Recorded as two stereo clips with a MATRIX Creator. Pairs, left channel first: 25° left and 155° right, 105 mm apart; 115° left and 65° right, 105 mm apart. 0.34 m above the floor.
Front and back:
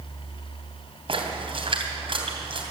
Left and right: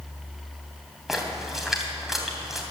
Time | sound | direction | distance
1.1 | a splash | 155° right | 3 m